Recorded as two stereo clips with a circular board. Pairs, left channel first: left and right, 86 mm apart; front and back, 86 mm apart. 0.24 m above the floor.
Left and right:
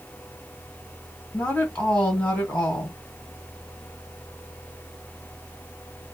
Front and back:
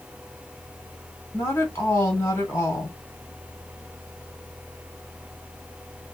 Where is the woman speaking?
25° left, 1.8 m.